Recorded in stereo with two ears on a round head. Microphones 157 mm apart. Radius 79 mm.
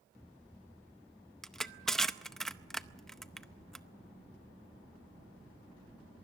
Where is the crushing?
5° left (ahead or behind), 0.6 m.